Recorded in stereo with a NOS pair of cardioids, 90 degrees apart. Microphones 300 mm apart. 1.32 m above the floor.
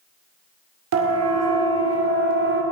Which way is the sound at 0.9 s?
60° right.